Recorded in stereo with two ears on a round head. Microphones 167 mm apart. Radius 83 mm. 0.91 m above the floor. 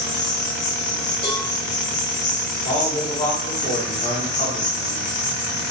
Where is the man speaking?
35° left (ahead or behind), 0.9 m.